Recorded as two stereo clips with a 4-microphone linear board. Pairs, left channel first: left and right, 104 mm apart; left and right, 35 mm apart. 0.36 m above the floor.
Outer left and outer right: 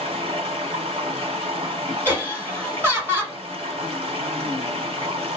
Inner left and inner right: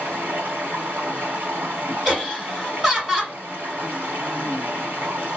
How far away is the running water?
About 1.7 m.